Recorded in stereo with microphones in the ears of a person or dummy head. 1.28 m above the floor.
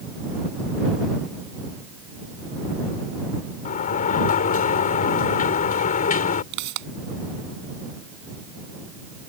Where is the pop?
60° right (ahead or behind).